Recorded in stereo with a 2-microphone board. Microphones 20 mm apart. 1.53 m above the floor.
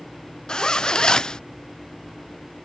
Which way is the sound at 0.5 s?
30° left (ahead or behind).